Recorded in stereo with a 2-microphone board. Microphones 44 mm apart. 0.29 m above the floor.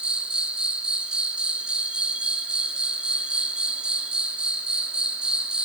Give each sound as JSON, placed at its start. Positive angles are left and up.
{"t": 0.0, "sound": "an insect", "side_deg": -25, "distance_m": 1.6}